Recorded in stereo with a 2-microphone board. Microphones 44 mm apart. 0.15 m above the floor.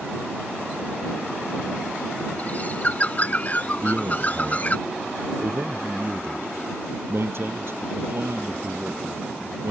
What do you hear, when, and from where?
2.4 s a bird: 35° left (ahead or behind)
3.8 s a man speaking: 55° right (ahead or behind)